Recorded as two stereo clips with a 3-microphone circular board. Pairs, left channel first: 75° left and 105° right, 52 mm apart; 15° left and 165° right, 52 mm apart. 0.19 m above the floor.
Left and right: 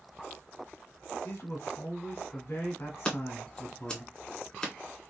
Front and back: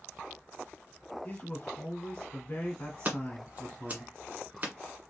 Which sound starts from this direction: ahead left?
A man speaking, at 1.2 s.